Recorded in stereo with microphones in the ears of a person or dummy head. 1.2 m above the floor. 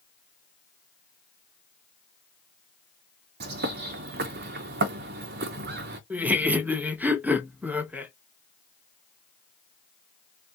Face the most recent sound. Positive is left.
turn(degrees=-5)  # may be behind; listen again after turning